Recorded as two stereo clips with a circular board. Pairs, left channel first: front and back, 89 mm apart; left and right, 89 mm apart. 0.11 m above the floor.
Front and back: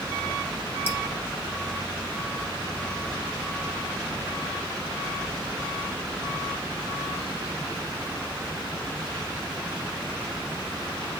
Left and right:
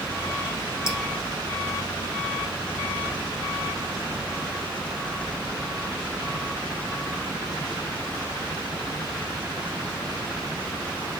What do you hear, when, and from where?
0.9 s dripping: 55° left, 1.2 m